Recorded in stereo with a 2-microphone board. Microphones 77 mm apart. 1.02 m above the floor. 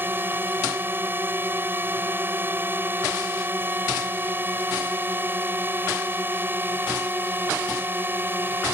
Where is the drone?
30° right (ahead or behind).